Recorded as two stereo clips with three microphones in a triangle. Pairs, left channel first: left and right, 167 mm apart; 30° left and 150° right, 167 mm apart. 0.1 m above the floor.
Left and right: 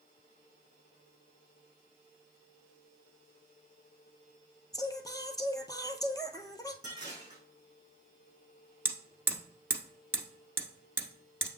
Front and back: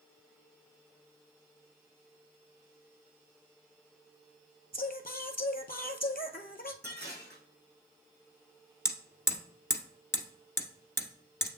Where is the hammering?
30° right, 1.2 m.